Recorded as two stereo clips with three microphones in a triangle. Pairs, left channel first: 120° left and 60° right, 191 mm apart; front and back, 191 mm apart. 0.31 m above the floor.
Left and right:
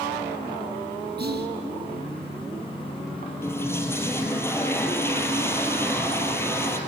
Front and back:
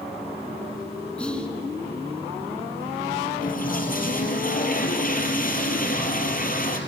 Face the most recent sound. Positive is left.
turn(degrees=45)